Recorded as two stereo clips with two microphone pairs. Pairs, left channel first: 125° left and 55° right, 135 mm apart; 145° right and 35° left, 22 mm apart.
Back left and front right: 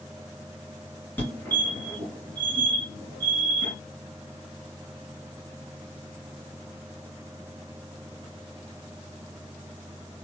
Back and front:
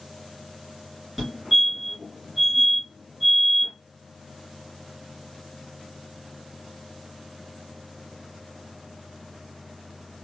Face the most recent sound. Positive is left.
turn(degrees=80)